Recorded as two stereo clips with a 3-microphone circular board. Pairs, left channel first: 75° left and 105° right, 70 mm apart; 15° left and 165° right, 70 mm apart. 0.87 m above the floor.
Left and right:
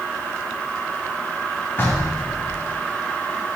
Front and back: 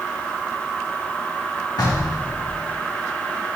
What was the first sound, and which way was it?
Knocking, 20° left.